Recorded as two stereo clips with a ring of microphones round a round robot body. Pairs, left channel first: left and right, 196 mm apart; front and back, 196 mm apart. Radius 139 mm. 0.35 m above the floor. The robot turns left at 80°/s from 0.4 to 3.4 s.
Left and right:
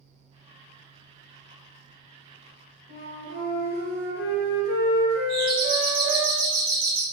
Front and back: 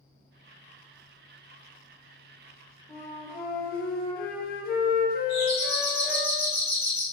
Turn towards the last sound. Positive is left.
turn(degrees=-65)